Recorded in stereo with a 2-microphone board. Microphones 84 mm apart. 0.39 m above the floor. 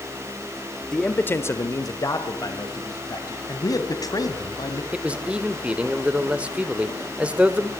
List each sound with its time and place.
0.9 s a man speaking: 10° left (ahead or behind), 1.5 m; by 3.4 s 50° left (ahead or behind), 3.5 m
3.5 s a man speaking: 45° left (ahead or behind), 3 m
4.9 s a man speaking: 15° right (ahead or behind), 1.6 m